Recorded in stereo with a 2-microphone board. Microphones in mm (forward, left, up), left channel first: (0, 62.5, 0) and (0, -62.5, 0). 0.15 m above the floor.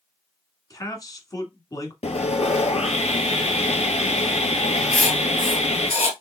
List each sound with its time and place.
0.7 s a man speaking: 30° left (ahead or behind), 1.4 m
2.0 s sawing: 60° left (ahead or behind), 0.8 m
4.9 s writing: 55° left (ahead or behind), 0.9 m